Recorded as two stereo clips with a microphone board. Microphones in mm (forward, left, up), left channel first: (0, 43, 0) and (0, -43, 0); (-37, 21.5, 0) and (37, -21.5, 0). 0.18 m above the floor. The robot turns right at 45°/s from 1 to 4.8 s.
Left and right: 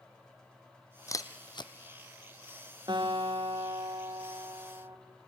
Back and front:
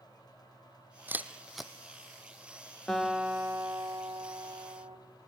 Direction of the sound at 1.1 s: 35° left.